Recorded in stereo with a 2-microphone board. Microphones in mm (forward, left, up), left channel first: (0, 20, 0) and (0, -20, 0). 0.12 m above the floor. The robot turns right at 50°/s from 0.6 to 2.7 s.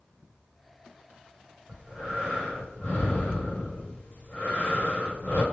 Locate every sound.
1.7 s breathing: 30° right, 2 m; by 5.4 s 20° left, 2 m